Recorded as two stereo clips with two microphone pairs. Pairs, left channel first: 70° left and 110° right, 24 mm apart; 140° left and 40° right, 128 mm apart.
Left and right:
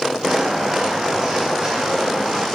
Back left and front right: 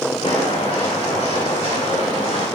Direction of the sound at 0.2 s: 175° right.